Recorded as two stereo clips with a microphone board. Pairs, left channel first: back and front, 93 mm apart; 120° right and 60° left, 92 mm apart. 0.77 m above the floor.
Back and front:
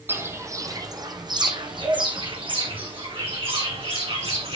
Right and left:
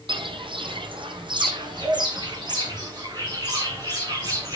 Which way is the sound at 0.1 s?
65° left.